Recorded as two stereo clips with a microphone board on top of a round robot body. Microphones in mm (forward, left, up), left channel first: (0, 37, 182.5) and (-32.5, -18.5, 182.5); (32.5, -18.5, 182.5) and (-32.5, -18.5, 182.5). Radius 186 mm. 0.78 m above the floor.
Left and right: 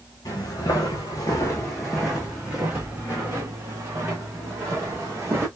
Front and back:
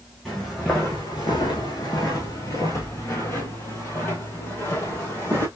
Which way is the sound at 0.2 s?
85° left.